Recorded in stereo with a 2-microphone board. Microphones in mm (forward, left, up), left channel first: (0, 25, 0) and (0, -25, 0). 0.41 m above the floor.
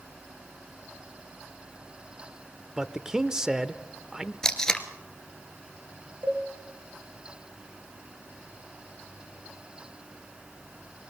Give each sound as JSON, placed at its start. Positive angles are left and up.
{"t": 2.8, "sound": "a man speaking", "side_deg": -10, "distance_m": 0.8}
{"t": 4.4, "sound": "tape being pulled", "side_deg": 10, "distance_m": 1.4}
{"t": 6.2, "sound": "a cowbell", "side_deg": -45, "distance_m": 7.0}